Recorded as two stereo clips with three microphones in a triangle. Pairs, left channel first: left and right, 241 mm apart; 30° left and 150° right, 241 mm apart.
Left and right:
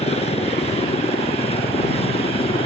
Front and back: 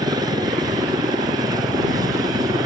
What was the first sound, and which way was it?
A helicopter, 145° left.